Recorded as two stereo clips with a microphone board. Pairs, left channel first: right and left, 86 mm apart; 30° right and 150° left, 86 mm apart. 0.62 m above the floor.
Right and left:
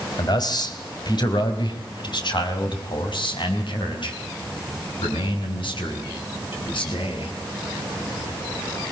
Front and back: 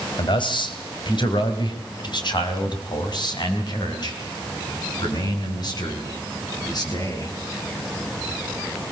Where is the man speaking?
50° right, 3 m; by 7.3 s 70° right, 7 m.